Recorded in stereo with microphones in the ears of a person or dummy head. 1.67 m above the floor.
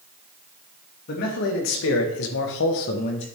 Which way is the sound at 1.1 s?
55° left (ahead or behind).